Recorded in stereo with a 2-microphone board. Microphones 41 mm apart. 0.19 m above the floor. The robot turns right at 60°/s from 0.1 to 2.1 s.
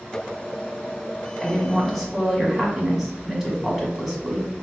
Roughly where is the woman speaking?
Centre.